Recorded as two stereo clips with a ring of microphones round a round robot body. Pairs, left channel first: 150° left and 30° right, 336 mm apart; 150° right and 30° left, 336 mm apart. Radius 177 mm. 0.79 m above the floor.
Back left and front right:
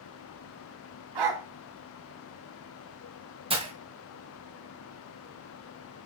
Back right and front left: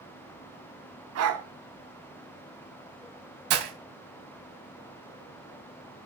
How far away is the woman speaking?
No woman speaking in this recording.